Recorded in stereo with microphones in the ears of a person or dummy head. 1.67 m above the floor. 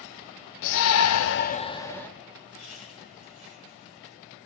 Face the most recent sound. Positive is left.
turn(degrees=85)